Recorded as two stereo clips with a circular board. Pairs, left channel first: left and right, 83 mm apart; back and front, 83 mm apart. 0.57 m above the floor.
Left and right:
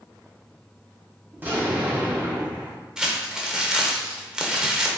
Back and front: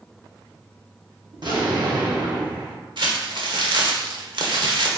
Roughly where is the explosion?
Ahead right.